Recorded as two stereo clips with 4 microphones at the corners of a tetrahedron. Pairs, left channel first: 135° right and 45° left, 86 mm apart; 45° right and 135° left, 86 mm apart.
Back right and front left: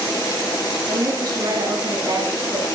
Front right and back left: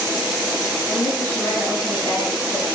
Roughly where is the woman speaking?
Ahead.